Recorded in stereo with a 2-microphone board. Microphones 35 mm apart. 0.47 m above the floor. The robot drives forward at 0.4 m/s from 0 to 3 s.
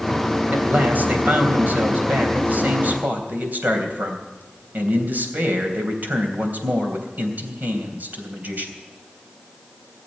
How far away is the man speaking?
About 3 m.